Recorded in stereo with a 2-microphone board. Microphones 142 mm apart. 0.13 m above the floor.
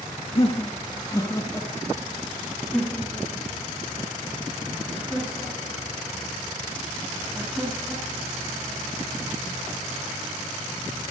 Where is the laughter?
45° left (ahead or behind), 2 m; by 8.3 s 10° right (ahead or behind), 12 m.